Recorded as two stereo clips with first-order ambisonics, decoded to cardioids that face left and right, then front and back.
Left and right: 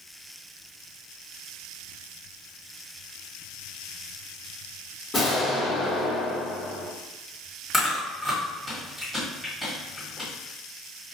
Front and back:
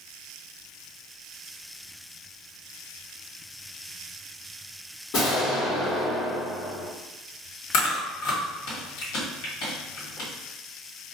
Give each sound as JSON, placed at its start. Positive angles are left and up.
{"t": 5.1, "sound": "an explosion", "azimuth_deg": 15, "distance_m": 1.4}
{"t": 7.7, "sound": "chewing", "azimuth_deg": 0, "distance_m": 1.5}